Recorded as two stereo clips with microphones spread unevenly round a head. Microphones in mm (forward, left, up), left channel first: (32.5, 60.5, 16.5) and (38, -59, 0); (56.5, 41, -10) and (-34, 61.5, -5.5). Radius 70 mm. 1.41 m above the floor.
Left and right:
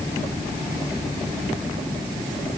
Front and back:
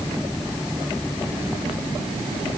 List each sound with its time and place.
Only background noise.